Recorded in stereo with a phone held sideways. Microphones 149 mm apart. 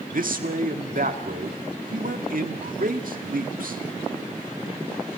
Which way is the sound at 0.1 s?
70° right (ahead or behind).